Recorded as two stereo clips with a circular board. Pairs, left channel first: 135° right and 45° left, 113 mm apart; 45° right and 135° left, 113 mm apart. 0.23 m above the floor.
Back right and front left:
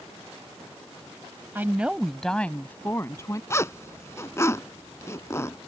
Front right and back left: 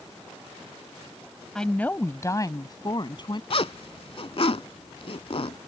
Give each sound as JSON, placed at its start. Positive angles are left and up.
{"t": 1.6, "sound": "a woman speaking", "azimuth_deg": 25}
{"t": 3.5, "sound": "a zipper", "azimuth_deg": -70}